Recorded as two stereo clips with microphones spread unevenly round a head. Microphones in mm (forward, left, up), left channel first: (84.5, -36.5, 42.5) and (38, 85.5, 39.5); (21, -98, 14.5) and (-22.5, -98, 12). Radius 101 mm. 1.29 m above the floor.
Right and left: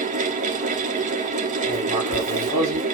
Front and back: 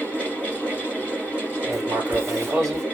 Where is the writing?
170° left, 3.5 m.